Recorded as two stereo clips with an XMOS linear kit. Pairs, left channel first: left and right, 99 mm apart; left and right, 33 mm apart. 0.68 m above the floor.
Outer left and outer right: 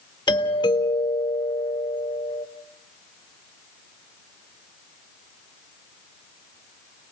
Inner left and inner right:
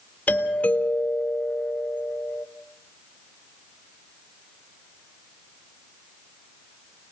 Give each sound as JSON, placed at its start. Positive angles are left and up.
{"t": 0.3, "sound": "a doorbell", "side_deg": 45, "distance_m": 3.0}